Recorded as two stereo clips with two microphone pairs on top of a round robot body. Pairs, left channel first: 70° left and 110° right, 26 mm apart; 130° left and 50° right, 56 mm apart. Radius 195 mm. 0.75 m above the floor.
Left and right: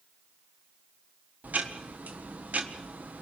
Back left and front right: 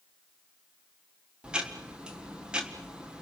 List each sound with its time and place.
1.4 s ticking: 125° right, 1.3 m